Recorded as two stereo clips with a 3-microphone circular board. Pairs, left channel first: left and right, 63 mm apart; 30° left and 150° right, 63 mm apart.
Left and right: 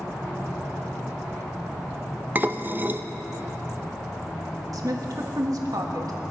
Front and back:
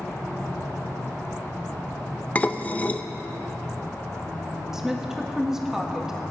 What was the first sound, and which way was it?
Dishes clattering, 35° right.